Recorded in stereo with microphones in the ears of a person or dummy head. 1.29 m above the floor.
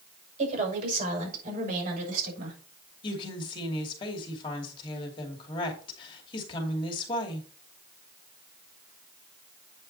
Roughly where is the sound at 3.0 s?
Left.